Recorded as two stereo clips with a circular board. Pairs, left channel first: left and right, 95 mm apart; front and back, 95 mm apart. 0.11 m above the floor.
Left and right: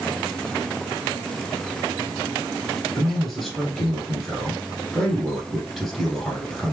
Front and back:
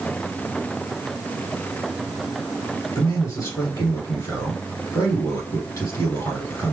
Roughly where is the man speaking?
Ahead.